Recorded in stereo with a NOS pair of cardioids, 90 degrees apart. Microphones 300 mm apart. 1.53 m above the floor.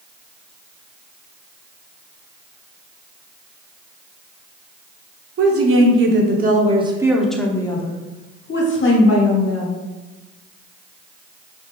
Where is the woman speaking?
50° right, 1.3 m; by 9.8 s 55° left, 1.6 m.